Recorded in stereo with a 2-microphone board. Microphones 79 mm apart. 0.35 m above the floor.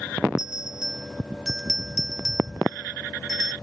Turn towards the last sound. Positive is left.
turn(degrees=-10)  # may be behind; listen again after turning